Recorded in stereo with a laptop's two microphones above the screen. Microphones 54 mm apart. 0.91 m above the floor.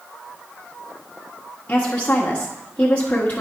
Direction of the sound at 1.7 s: 25° left (ahead or behind).